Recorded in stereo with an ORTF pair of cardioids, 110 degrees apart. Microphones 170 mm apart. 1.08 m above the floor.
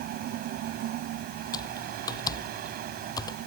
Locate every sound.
0.0 s a fan: 70° right
1.5 s typing on a keyboard: 25° left